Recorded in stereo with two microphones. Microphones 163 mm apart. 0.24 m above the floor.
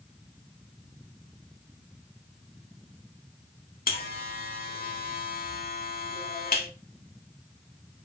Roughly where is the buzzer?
Left.